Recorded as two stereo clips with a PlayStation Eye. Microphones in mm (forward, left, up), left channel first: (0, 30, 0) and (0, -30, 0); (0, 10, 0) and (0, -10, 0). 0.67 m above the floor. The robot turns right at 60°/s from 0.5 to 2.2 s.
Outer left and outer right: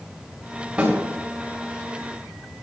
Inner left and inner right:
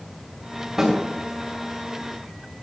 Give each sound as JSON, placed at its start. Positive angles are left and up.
{"t": 0.8, "sound": "a snare drum", "side_deg": -20, "distance_m": 3.5}